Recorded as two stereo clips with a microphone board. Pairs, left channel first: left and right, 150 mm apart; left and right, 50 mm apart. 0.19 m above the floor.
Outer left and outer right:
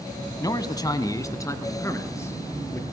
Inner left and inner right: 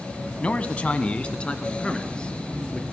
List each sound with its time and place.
0.4 s a man speaking: 25° left (ahead or behind), 1.4 m; by 2.8 s 15° left (ahead or behind), 3.5 m